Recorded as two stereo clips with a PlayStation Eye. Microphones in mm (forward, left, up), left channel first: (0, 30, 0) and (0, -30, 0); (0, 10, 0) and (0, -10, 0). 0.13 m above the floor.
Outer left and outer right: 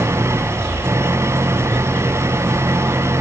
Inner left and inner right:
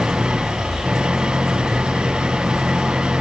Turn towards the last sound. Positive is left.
turn(degrees=-50)  # may be behind; listen again after turning